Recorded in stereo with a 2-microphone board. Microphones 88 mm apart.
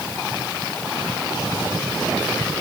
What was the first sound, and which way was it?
Only background noise.